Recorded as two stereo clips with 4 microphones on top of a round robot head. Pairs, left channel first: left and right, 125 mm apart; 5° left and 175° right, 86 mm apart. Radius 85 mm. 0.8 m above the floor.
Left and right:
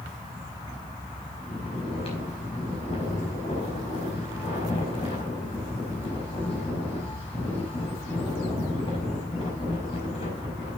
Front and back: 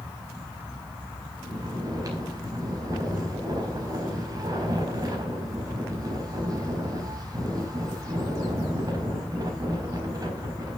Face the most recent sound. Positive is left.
turn(degrees=140)